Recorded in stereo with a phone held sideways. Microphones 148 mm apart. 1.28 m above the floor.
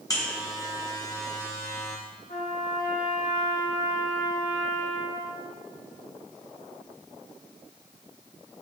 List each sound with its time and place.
0.1 s a buzzer: 25° left (ahead or behind), 1.5 m
2.3 s a trumpet: 80° left, 3.5 m